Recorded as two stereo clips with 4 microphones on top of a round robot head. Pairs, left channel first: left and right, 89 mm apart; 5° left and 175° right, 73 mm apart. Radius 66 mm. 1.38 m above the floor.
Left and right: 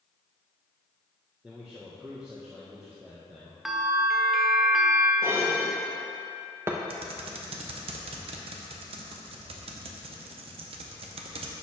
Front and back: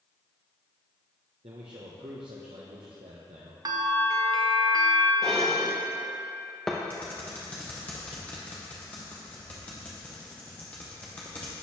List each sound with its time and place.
1.4 s a man speaking: 170° right, 0.8 m
3.6 s a bell: straight behind, 0.7 m
5.2 s dishes clattering: 70° right, 0.5 m
6.9 s typing on a keyboard: 75° right, 0.7 m